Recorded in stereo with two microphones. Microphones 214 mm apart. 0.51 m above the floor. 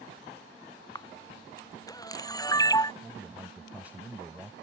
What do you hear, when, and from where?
0.9 s a camera shutter: 15° left (ahead or behind)
3.0 s a man speaking: 5° right (ahead or behind)